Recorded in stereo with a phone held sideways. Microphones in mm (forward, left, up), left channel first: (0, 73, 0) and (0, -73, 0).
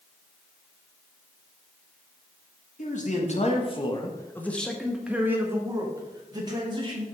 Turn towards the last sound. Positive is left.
turn(degrees=-30)  # may be behind; listen again after turning